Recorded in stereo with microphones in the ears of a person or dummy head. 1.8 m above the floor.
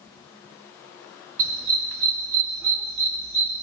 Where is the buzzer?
I don't hear a buzzer.